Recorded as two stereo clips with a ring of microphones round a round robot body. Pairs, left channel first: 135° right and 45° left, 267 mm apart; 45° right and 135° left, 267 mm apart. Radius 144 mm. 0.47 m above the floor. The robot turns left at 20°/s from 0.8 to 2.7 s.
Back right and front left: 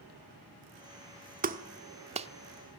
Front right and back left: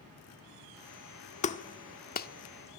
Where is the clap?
5° left, 1.1 m; by 2.3 s 10° right, 1.1 m.